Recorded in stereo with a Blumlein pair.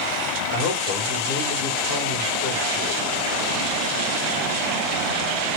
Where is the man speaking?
50° left, 1.3 m.